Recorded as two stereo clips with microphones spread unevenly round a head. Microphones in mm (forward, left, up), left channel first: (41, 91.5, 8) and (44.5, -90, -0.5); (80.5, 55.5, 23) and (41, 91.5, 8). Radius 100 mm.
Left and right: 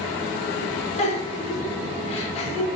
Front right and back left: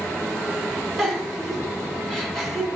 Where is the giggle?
40° left, 3.5 m.